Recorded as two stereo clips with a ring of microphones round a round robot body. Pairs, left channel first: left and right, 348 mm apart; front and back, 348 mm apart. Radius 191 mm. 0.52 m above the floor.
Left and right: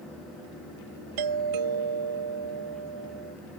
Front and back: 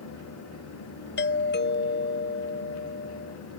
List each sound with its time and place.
1.2 s a doorbell: 60° right